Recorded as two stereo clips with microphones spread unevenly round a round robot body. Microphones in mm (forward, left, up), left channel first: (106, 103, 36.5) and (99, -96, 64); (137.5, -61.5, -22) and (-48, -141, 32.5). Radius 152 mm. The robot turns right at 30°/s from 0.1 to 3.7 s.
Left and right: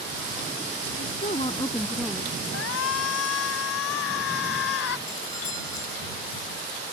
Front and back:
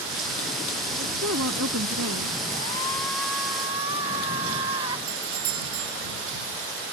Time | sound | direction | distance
1.0 | a woman speaking | 150° left | ?
2.5 | a shout | 95° left | ?
5.1 | a doorbell | 165° left | ?